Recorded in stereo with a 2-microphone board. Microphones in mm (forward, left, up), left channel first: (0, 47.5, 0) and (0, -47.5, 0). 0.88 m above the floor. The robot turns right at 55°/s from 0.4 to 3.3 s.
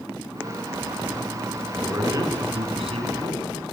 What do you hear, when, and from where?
1.7 s a man speaking: 160° right, 8.5 m; by 3.6 s 75° right, 8.5 m